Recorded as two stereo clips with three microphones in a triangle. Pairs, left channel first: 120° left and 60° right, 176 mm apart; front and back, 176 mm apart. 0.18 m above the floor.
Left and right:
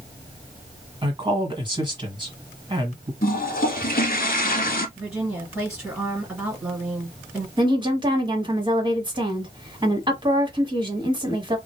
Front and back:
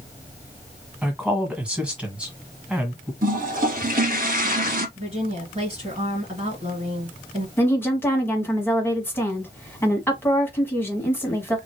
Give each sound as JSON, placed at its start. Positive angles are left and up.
{"t": 1.0, "sound": "a woman speaking", "azimuth_deg": -100, "distance_m": 1.4}
{"t": 3.2, "sound": "a toilet flushing", "azimuth_deg": 150, "distance_m": 0.7}
{"t": 5.0, "sound": "a woman speaking", "azimuth_deg": -140, "distance_m": 2.5}
{"t": 7.6, "sound": "a woman speaking", "azimuth_deg": -60, "distance_m": 1.5}